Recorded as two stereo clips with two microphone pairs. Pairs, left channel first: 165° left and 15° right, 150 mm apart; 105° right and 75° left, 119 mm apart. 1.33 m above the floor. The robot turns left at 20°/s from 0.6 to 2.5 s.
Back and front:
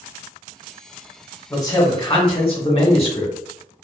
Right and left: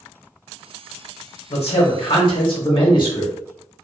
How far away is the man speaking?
About 1.2 m.